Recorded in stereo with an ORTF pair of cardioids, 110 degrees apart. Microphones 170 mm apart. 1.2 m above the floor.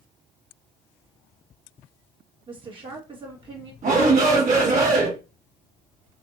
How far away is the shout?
About 2 m.